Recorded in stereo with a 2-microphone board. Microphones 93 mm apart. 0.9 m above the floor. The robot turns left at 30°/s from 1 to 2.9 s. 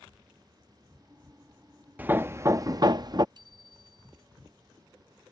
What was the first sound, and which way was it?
Hammering, 15° right (ahead or behind).